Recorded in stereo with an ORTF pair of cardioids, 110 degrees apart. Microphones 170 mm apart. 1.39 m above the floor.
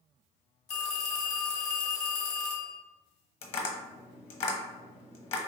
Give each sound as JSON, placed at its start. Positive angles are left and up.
{"t": 0.7, "sound": "a phone ringing", "azimuth_deg": 40, "distance_m": 1.0}
{"t": 3.4, "sound": "tapping", "azimuth_deg": 35, "distance_m": 1.0}